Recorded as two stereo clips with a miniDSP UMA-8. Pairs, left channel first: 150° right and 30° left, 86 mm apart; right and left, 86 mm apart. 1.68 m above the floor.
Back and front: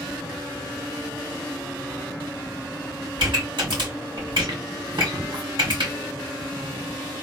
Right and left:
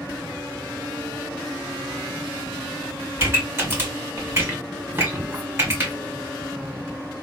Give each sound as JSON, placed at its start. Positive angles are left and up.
{"t": 3.2, "sound": "a pop", "azimuth_deg": 35, "distance_m": 2.5}